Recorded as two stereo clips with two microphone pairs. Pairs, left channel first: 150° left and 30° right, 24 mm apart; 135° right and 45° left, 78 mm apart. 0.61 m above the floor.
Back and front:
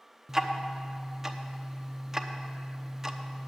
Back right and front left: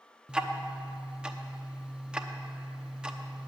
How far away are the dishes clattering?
No dishes clattering in this recording.